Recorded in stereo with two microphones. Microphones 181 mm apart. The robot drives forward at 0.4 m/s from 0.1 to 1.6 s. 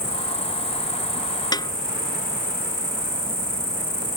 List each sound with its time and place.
0.0 s an insect: 60° left (ahead or behind)
1.5 s a snare drum: 20° left (ahead or behind)